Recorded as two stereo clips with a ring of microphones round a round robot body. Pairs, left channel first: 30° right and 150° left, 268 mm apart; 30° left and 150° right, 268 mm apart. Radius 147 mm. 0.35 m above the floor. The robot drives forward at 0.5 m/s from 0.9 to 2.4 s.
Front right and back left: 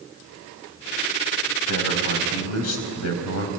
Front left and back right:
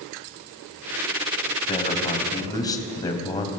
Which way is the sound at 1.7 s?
40° right.